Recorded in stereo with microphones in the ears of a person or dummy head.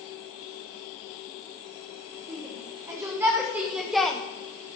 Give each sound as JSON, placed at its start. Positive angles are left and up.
{"t": 2.3, "sound": "a shout", "side_deg": -20, "distance_m": 3.0}